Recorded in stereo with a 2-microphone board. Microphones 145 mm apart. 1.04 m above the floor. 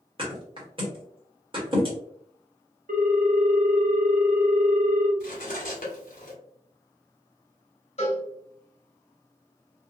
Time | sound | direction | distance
0.2 | a thud | 40° right (ahead or behind) | 1.4 m
2.9 | a ringtone | 65° right (ahead or behind) | 0.6 m
5.2 | cutlery clinking | 65° left (ahead or behind) | 1.1 m
8.0 | a cowbell | 45° left (ahead or behind) | 1.4 m